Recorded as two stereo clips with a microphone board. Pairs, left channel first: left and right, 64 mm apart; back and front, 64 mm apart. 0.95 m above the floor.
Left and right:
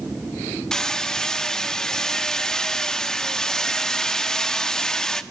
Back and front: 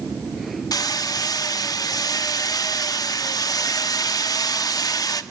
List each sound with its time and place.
0.7 s hammering: 170° left, 1.1 m